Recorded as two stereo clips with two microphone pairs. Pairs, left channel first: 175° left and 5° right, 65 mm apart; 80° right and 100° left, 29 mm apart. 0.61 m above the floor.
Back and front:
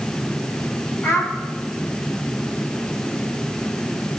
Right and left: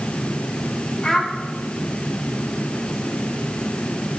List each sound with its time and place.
1.0 s a child speaking: 145° right, 1.6 m